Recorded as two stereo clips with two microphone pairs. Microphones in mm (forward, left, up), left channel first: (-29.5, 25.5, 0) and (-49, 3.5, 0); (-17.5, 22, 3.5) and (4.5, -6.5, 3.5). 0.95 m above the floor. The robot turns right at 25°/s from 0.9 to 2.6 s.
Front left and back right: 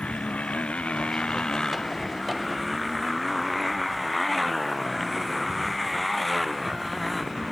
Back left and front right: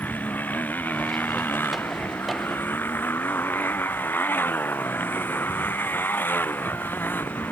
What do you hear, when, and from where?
0.0 s a motorcycle: 95° left; by 7.5 s 135° left